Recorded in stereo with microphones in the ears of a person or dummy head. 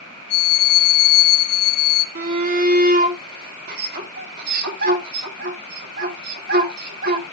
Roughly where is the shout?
Right.